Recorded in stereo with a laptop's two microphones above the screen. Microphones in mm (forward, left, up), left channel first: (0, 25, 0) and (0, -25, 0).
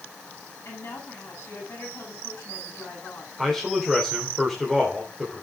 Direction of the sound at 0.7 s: 55° left (ahead or behind).